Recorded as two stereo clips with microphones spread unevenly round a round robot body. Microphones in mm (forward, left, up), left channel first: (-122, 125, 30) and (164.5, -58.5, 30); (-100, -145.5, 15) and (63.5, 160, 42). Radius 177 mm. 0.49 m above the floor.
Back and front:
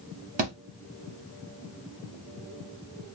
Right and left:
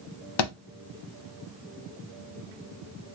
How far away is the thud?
About 0.9 m.